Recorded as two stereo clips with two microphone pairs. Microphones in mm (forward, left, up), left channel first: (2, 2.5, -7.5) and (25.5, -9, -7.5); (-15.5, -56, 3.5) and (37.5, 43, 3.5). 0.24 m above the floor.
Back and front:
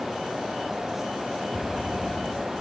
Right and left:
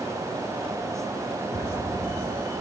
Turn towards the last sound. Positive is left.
turn(degrees=-75)